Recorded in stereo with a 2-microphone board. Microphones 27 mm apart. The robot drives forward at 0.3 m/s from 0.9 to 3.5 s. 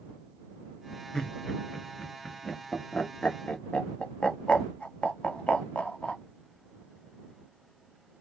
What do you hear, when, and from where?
1.1 s laughter: 30° left (ahead or behind), 1.5 m; by 6.2 s 50° left (ahead or behind), 1.0 m